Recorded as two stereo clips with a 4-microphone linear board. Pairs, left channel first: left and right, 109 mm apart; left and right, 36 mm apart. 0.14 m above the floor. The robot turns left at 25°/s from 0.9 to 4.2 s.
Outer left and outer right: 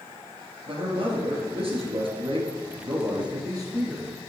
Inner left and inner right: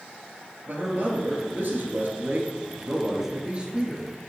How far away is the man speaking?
About 2 m.